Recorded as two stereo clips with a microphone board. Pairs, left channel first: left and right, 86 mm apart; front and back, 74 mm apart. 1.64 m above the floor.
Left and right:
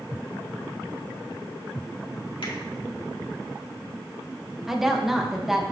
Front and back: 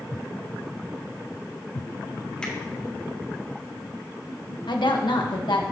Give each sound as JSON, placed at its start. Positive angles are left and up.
{"t": 2.4, "sound": "a finger snap", "azimuth_deg": 80, "distance_m": 2.5}
{"t": 4.7, "sound": "a woman speaking", "azimuth_deg": -5, "distance_m": 1.4}